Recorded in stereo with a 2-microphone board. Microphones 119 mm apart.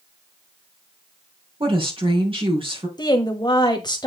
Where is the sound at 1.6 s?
50° right (ahead or behind), 4 m.